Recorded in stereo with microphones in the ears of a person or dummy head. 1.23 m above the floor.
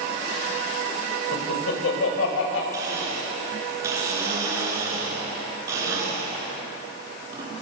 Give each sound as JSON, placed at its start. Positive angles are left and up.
{"t": 1.3, "sound": "laughter", "side_deg": 85, "distance_m": 6.0}
{"t": 2.7, "sound": "a blender", "side_deg": -20, "distance_m": 8.0}